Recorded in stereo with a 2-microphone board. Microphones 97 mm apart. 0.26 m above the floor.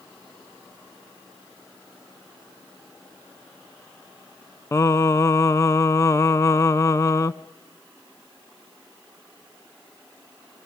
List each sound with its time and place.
4.7 s singing: 30° left (ahead or behind), 0.6 m